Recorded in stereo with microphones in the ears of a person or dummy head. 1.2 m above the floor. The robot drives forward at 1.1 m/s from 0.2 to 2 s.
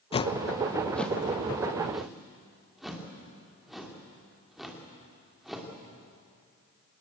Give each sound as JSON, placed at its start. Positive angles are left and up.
{"t": 0.1, "sound": "a whoosh", "side_deg": 40, "distance_m": 0.5}